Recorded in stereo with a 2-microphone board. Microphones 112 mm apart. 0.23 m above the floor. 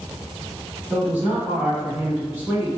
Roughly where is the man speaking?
Centre.